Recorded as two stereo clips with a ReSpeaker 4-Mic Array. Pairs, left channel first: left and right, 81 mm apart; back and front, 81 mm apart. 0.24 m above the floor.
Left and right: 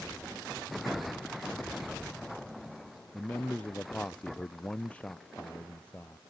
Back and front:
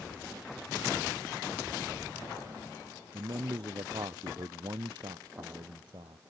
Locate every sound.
3.1 s a man speaking: 15° left